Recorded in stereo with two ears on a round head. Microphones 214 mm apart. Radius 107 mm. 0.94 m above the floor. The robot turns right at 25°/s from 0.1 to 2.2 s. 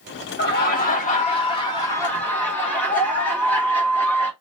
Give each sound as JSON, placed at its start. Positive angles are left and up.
{"t": 0.4, "sound": "laughter", "azimuth_deg": 125, "distance_m": 1.6}